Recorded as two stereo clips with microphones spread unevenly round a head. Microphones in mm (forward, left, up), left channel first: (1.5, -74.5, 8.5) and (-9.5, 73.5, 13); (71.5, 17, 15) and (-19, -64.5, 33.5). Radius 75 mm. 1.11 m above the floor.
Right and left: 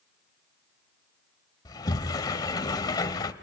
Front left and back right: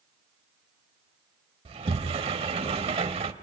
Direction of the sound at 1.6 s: 145° right.